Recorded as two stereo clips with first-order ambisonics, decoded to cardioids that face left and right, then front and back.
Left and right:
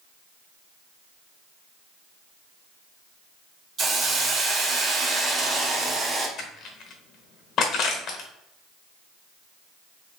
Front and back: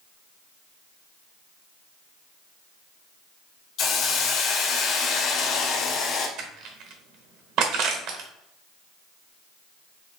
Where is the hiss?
35° right, 0.7 m.